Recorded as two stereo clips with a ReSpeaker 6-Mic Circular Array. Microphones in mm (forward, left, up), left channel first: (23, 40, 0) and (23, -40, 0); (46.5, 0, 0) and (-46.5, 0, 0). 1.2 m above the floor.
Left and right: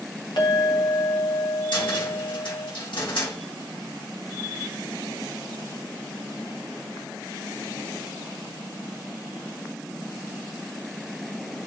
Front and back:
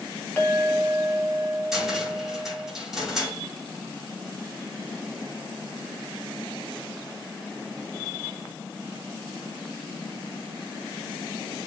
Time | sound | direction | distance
0.4 | a clink | 70° left | 1.7 m
1.7 | a cupboard door | 95° left | 2.5 m